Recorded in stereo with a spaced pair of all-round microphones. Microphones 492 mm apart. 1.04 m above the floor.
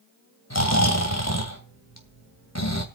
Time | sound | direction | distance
0.5 | snoring | 35° left (ahead or behind) | 2.5 m